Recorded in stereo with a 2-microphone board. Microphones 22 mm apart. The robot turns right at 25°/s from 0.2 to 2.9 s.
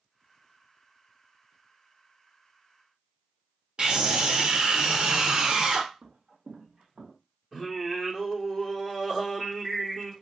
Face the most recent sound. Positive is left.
turn(degrees=-5)  # may be behind; listen again after turning